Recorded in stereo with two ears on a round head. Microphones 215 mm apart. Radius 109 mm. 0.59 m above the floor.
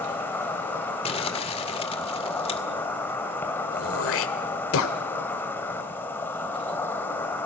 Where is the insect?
10° left (ahead or behind), 2.5 m.